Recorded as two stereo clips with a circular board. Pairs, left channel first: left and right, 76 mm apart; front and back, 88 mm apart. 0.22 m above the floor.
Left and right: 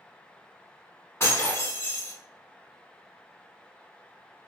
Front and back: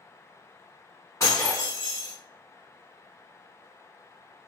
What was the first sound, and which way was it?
Breaking glass, 45° left.